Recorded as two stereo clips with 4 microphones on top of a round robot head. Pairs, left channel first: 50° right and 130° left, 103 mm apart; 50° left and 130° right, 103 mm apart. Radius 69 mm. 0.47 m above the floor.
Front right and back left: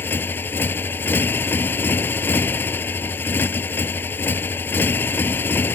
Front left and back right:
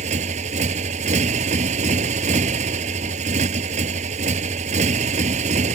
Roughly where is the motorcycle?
Behind right.